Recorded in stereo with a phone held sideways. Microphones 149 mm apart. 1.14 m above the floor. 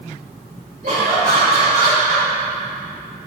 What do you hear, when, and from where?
0.8 s laughter: 60° right (ahead or behind), 3.5 m; by 2.3 s 50° right (ahead or behind), 4.5 m